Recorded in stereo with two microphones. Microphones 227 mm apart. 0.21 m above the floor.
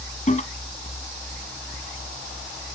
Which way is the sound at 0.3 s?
35° left (ahead or behind).